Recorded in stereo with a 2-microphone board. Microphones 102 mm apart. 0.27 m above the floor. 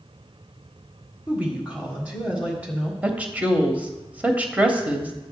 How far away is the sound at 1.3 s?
About 1.7 m.